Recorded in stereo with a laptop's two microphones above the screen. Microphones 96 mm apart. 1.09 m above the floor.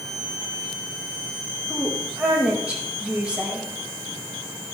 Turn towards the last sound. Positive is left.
turn(degrees=-10)  # may be behind; listen again after turning